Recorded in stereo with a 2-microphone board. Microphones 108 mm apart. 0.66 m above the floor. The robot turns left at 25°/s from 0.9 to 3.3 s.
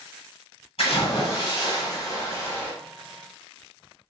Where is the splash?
60° left, 1.3 m; by 2.7 s 15° left, 1.3 m.